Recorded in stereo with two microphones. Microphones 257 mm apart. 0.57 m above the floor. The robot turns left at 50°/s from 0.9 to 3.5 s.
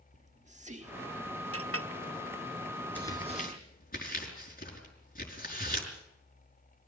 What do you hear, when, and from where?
0.1 s whispering: 40° right, 1.4 m; by 1.6 s 70° right, 1.4 m
1.5 s a clink: 60° right (ahead or behind), 0.9 m; by 1.9 s 55° right (ahead or behind), 0.9 m
3.0 s tearing paper: 5° left (ahead or behind), 5.5 m; by 5.9 s 35° left (ahead or behind), 5.5 m